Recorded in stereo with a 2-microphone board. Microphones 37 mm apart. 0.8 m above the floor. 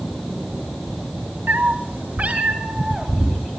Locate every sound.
1.5 s a cat meowing: 75° right (ahead or behind), 1.4 m; by 3.4 s 20° right (ahead or behind), 3.5 m